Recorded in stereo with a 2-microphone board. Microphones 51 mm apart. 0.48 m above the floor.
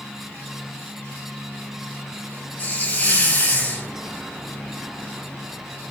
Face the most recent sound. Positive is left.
turn(degrees=30)  # may be behind; listen again after turning